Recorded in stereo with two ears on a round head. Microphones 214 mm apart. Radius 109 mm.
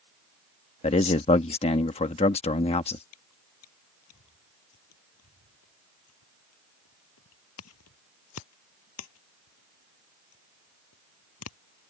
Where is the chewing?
65° left (ahead or behind).